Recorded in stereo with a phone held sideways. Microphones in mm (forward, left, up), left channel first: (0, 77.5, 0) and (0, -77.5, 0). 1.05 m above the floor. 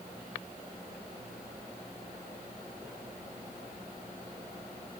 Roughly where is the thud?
I don't hear a thud.